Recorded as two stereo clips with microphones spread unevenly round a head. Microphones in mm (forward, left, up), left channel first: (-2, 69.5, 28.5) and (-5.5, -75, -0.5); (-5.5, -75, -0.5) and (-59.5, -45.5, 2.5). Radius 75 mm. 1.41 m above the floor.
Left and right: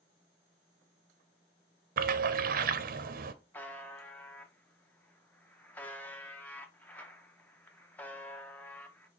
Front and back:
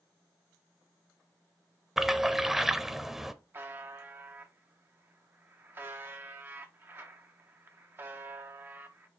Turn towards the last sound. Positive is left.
turn(degrees=145)